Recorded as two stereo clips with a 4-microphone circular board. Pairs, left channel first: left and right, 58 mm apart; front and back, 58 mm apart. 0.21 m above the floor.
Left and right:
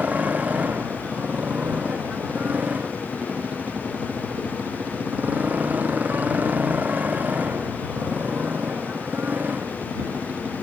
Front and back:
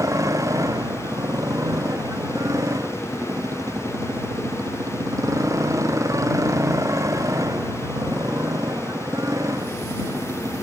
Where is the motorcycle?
155° right; by 10.7 s 150° right.